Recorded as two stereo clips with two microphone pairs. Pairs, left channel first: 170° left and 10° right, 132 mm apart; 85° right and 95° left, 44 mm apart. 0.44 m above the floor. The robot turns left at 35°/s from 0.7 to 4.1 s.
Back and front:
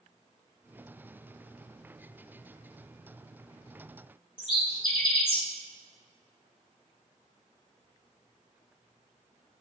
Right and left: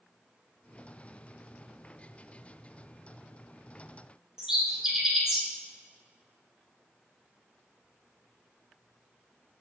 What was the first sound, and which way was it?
A bird, 165° left.